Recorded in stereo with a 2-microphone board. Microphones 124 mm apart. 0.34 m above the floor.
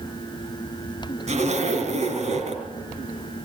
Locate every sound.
1.3 s a zipper: 70° right (ahead or behind), 3.5 m